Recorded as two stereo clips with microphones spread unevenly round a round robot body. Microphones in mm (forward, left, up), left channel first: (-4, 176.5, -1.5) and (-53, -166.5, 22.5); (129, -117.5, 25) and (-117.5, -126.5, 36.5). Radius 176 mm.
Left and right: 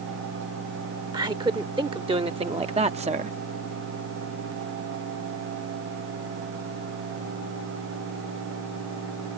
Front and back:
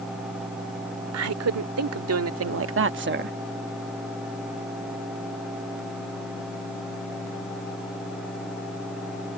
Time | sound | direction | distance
1.1 | a woman speaking | 175° right | ?